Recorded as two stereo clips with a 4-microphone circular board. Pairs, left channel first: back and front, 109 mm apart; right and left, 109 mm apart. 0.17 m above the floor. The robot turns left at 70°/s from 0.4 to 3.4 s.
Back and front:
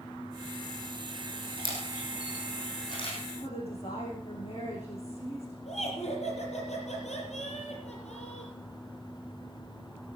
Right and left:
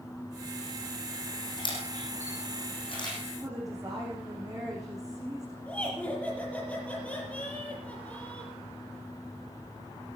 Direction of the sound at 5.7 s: 170° right.